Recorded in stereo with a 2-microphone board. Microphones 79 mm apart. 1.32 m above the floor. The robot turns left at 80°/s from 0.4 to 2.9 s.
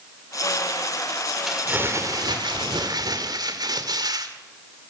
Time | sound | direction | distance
1.5 | crumpling | straight ahead | 2.5 m